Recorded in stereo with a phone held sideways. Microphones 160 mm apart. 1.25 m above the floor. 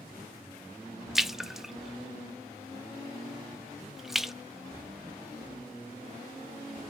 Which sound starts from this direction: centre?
A splash, at 1.1 s.